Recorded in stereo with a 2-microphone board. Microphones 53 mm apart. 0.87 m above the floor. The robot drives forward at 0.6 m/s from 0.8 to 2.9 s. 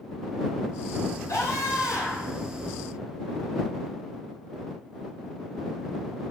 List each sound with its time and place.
1.3 s a scream: 70° left (ahead or behind), 6.5 m; by 2.4 s 65° left (ahead or behind), 7 m